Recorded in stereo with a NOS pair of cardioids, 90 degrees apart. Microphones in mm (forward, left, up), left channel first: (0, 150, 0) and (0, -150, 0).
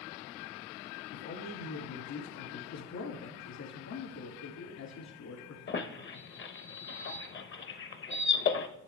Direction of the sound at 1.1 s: 65° left.